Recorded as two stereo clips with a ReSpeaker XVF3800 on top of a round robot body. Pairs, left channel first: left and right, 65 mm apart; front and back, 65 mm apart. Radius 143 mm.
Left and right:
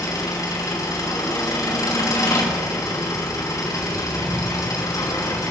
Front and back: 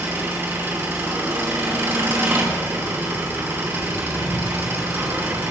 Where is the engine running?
125° left, 3.5 m.